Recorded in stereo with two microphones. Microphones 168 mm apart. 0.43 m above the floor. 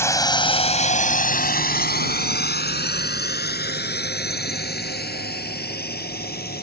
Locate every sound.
0.0 s a drone: 15° left (ahead or behind); by 6.6 s 70° left (ahead or behind)